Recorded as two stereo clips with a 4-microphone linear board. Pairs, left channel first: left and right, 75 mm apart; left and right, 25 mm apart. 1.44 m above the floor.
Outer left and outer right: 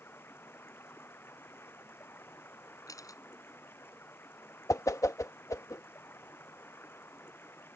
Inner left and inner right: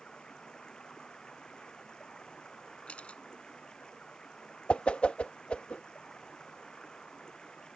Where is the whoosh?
45° left (ahead or behind).